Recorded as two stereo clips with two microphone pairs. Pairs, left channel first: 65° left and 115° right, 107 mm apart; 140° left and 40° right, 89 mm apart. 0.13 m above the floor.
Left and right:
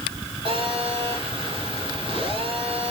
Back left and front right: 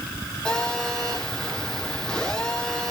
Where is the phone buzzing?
145° right, 8.5 m.